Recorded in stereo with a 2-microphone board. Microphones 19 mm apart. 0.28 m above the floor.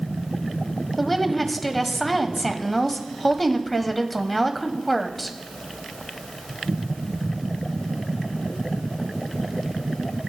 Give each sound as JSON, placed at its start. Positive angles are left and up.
{"t": 1.0, "sound": "a woman speaking", "side_deg": 5, "distance_m": 1.2}